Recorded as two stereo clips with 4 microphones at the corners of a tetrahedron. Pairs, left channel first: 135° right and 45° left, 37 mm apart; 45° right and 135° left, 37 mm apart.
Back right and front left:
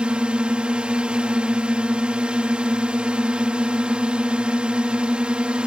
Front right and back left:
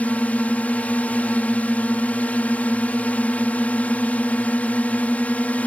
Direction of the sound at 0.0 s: 10° right.